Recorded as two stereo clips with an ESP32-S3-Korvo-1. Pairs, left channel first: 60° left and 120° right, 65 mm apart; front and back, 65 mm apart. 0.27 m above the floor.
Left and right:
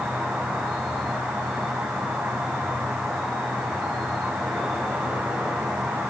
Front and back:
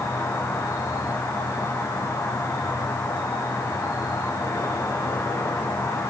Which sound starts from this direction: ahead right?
An insect, at 0.0 s.